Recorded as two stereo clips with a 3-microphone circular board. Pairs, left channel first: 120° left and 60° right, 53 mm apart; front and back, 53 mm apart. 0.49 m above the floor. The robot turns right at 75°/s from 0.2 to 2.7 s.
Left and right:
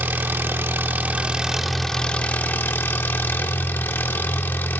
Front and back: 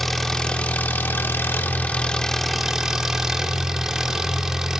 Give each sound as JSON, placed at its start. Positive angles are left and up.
{"t": 0.0, "sound": "an engine running", "azimuth_deg": -85, "distance_m": 0.7}